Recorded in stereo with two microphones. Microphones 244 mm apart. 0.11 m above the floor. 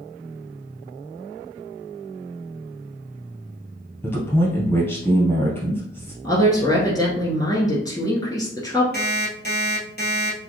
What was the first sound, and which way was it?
A man speaking, 10° left (ahead or behind).